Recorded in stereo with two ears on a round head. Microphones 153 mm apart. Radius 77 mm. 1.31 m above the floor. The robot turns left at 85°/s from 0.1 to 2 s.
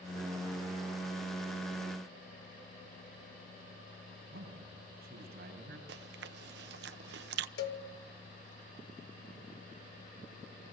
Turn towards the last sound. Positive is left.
turn(degrees=60)  # may be behind; listen again after turning